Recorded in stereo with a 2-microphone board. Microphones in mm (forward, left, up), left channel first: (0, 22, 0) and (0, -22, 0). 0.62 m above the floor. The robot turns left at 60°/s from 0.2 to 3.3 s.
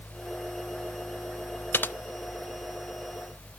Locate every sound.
1.7 s typing on a keyboard: 55° left (ahead or behind), 0.5 m; by 1.9 s 45° left (ahead or behind), 0.5 m